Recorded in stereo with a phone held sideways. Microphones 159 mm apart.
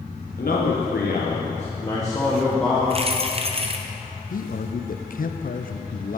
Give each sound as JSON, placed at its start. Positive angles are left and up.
{"t": 0.4, "sound": "a man speaking", "side_deg": 65, "distance_m": 1.3}
{"t": 2.9, "sound": "keys jangling", "side_deg": -40, "distance_m": 0.6}
{"t": 4.3, "sound": "a man speaking", "side_deg": 60, "distance_m": 0.5}